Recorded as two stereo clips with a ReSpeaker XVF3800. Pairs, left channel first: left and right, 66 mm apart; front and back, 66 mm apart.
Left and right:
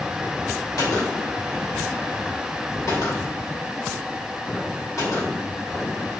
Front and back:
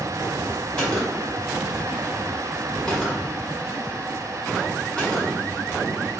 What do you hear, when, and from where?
0.8 s a gunshot: 75° left, 2.5 m